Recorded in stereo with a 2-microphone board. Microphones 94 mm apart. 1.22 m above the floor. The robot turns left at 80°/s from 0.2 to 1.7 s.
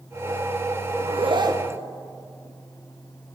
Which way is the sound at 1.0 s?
95° right.